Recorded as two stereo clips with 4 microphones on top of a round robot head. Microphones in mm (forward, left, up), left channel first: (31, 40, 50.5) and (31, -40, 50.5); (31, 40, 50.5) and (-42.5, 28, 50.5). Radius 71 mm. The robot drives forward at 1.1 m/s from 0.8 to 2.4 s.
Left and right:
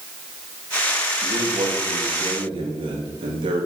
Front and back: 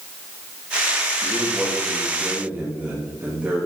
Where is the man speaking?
70° right, 3 m; by 3.7 s 95° right, 3 m.